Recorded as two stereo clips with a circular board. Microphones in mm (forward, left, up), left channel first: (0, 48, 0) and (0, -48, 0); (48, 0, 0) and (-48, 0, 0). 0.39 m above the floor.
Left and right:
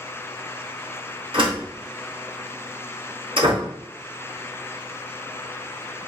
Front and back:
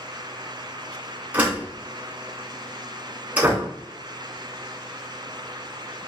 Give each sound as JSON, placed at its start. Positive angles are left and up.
{"t": 1.3, "sound": "a door slam", "azimuth_deg": -105, "distance_m": 2.5}